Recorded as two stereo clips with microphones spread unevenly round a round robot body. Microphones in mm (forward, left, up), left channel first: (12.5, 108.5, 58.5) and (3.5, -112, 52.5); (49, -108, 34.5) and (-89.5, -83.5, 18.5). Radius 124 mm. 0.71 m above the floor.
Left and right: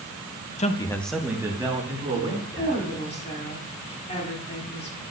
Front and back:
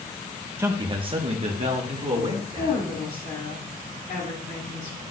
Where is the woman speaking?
25° left, 2 m.